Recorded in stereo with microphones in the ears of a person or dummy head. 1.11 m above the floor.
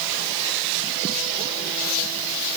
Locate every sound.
Only background noise.